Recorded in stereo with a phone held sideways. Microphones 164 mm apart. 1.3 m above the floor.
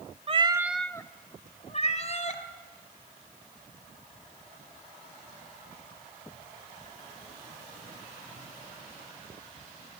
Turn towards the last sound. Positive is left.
turn(degrees=50)  # may be behind; listen again after turning